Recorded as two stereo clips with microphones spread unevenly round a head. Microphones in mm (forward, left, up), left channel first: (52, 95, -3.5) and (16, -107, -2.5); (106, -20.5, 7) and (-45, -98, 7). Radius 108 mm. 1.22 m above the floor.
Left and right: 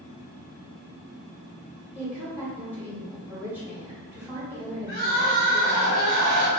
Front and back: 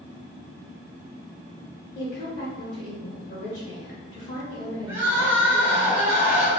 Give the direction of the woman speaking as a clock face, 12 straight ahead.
1 o'clock.